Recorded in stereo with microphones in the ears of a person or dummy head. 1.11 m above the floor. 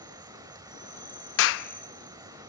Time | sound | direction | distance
0.0 | an insect | 15° right (ahead or behind) | 1.6 m
1.4 | a clap | 70° left (ahead or behind) | 0.8 m